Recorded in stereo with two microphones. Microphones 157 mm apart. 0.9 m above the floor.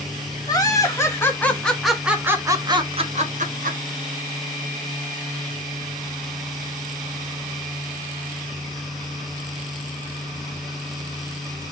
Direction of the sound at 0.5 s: 25° left (ahead or behind).